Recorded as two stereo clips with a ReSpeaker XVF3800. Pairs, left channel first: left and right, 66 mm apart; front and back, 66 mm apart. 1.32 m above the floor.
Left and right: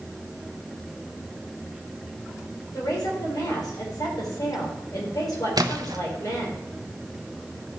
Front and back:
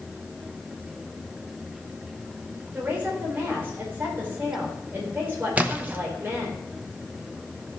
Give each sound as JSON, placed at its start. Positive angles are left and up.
{"t": 2.7, "sound": "a woman speaking", "azimuth_deg": 120, "distance_m": 5.0}
{"t": 5.6, "sound": "a splash", "azimuth_deg": -110, "distance_m": 1.1}